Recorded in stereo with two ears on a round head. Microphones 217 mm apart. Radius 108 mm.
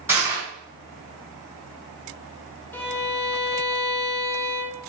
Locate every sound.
0.1 s crushing: 10° right (ahead or behind), 3.5 m
2.7 s a violin: 10° left (ahead or behind), 1.2 m